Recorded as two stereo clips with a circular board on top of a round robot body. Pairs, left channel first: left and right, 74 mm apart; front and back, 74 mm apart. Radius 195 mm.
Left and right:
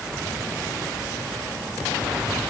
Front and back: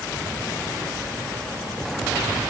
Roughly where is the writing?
I don't hear writing.